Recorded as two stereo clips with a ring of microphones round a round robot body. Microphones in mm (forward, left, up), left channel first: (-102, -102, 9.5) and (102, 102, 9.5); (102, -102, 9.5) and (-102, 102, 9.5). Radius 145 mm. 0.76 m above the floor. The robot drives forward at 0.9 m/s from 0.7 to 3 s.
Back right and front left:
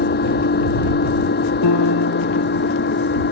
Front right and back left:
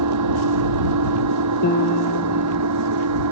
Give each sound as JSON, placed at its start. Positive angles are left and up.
{"t": 0.0, "sound": "an engine running", "azimuth_deg": 165}
{"t": 1.6, "sound": "a piano", "azimuth_deg": -105}